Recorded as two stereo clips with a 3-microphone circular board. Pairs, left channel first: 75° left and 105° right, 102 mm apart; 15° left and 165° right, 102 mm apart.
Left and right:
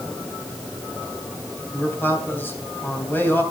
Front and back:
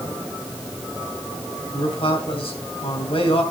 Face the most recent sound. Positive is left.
turn(degrees=5)